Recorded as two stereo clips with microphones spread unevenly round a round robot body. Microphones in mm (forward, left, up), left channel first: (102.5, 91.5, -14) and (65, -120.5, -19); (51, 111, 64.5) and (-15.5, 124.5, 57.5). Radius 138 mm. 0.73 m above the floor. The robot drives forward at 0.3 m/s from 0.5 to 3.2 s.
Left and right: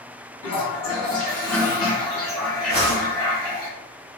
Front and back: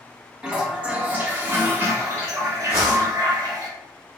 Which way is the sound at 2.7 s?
155° right.